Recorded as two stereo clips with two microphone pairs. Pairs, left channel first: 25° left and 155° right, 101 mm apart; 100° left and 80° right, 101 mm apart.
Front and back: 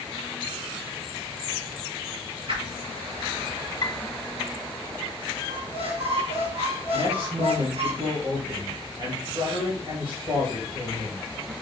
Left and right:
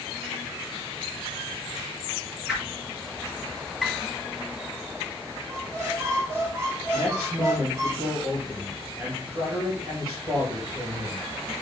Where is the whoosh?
160° right, 4.5 m.